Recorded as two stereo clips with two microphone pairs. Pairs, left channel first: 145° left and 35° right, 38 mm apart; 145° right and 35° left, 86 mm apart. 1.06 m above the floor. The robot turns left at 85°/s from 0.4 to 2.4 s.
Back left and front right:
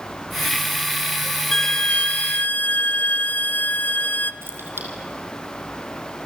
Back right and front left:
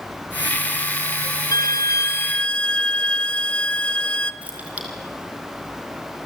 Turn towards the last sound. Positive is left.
turn(degrees=-35)